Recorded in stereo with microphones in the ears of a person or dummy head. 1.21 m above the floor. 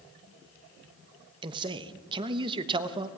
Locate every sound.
1.4 s a man speaking: 25° right (ahead or behind), 1.0 m